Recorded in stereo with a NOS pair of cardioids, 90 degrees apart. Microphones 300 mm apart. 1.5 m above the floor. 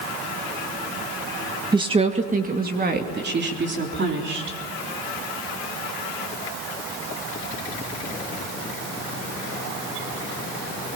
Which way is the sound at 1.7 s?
15° right.